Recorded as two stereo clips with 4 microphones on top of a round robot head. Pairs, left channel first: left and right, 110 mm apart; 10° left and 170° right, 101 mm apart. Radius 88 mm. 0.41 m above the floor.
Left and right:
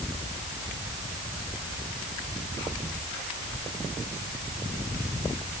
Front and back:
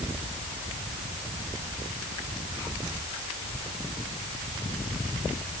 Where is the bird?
No bird in this recording.